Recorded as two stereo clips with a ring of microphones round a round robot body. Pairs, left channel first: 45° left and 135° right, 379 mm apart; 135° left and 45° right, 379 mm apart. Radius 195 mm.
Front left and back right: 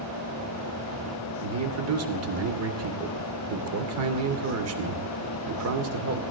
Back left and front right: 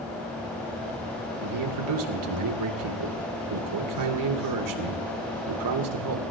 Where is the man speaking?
85° right, 2.5 m.